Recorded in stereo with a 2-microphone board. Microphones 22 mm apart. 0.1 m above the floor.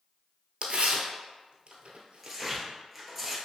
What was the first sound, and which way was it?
Tearing paper, 60° right (ahead or behind).